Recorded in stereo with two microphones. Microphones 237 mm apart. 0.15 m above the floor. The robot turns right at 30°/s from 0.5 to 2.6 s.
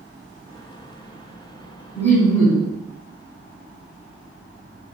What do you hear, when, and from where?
1.9 s laughter: 10° left (ahead or behind), 1.5 m; by 2.7 s centre (ahead or behind), 1.5 m